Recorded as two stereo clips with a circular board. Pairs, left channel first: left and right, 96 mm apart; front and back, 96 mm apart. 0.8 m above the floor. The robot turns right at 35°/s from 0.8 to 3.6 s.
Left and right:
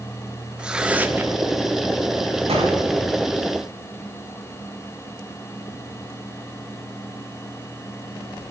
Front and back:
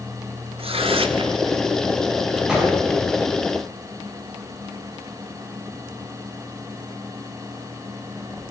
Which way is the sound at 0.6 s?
170° right.